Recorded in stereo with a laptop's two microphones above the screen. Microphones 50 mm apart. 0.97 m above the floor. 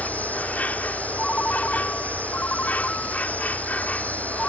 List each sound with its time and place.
0.0 s an insect: 35° left (ahead or behind)
1.2 s a ringtone: 30° left (ahead or behind)